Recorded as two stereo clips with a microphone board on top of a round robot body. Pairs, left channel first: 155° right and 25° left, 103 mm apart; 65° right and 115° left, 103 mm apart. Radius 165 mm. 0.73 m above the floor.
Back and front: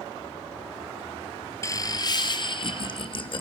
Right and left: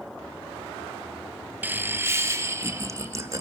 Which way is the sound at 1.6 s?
170° left.